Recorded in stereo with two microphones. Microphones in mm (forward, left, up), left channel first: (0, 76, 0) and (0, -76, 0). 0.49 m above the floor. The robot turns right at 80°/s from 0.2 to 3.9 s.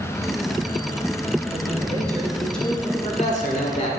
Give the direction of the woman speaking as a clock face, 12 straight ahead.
3 o'clock.